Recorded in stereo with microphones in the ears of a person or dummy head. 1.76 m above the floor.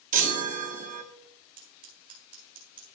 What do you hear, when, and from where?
0.1 s a chime: 40° right (ahead or behind), 0.8 m
1.6 s scissors: 40° right (ahead or behind), 1.9 m